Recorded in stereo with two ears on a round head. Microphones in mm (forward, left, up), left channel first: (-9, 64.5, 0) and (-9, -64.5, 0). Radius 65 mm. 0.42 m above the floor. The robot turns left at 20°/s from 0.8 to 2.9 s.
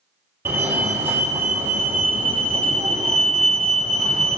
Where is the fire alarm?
15° right (ahead or behind), 2 m; by 4.4 s 5° right (ahead or behind), 2 m.